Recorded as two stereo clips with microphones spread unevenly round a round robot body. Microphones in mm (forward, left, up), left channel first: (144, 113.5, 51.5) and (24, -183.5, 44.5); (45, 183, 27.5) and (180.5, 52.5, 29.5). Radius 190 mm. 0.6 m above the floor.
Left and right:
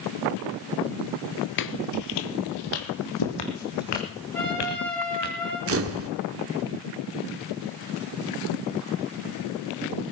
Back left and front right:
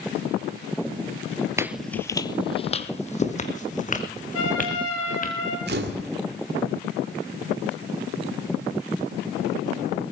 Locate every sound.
1.6 s footsteps: 25° left, 0.8 m; by 5.3 s 90° left, 4 m
4.3 s a trumpet: 155° left, 8.5 m
5.7 s a camera shutter: 70° right, 1.8 m